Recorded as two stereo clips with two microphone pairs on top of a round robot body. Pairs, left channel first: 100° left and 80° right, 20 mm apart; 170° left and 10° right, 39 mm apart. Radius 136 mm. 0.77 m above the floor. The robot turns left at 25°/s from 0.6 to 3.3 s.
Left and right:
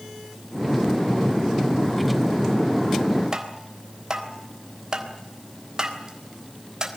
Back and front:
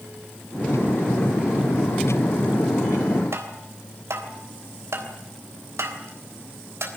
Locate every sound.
3.3 s tapping: 20° right, 3.5 m